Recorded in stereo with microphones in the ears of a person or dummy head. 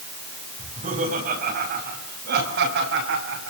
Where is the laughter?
35° right (ahead or behind), 6.5 m; by 3.5 s 65° right (ahead or behind), 6.5 m.